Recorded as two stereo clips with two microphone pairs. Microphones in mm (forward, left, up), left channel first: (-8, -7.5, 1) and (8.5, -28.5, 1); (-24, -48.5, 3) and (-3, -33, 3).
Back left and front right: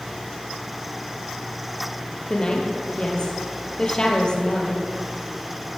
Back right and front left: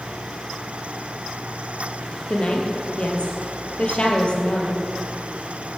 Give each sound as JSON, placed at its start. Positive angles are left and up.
{"t": 2.3, "sound": "a woman speaking", "azimuth_deg": -175, "distance_m": 2.0}